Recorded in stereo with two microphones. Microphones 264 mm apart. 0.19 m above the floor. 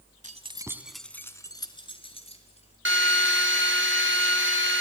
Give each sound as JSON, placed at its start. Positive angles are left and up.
{"t": 0.2, "sound": "keys jangling", "side_deg": -30, "distance_m": 1.1}
{"t": 2.9, "sound": "a drill", "side_deg": -50, "distance_m": 1.9}